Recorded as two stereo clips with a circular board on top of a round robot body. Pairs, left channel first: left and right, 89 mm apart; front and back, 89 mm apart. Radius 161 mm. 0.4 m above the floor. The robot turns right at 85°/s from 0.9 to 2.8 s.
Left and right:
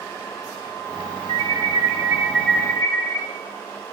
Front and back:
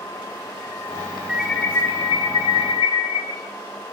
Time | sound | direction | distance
1.3 | an alarm | 100° right | 6.5 m